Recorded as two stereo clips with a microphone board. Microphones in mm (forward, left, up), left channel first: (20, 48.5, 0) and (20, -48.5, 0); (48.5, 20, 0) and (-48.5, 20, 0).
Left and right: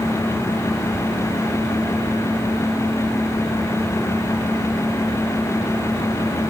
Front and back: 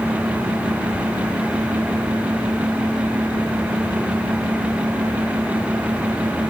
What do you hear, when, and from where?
Only background noise.